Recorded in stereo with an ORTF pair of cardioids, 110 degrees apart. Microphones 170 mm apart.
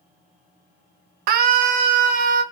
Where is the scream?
65° right, 0.7 m; by 2.4 s 55° right, 1.4 m.